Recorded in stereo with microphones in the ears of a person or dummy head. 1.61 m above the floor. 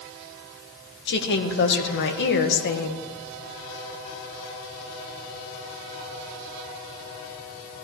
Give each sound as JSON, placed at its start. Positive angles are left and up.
{"t": 1.1, "sound": "a woman speaking", "side_deg": 60, "distance_m": 1.6}